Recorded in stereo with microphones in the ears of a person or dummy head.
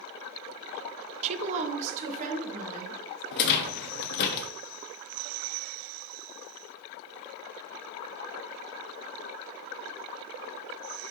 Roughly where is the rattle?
Left.